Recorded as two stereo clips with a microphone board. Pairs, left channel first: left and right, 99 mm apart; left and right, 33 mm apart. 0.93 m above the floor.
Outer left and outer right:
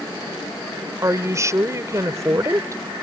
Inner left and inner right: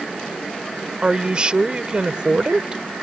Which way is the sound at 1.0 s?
30° right (ahead or behind).